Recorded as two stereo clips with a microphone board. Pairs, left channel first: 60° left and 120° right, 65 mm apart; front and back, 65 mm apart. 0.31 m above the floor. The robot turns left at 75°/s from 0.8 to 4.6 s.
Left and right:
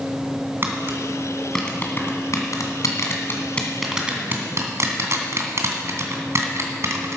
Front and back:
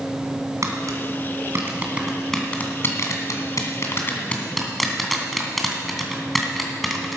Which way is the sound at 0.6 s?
165° right.